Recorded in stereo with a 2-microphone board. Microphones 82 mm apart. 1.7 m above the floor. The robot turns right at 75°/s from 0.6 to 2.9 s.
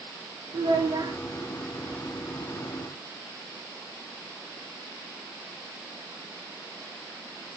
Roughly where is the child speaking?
Right.